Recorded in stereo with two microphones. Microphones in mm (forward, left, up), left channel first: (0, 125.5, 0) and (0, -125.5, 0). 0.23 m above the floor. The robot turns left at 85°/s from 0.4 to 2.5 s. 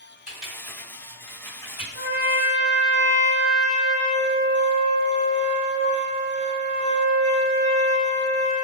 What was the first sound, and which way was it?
Typing on a keyboard, 35° right (ahead or behind).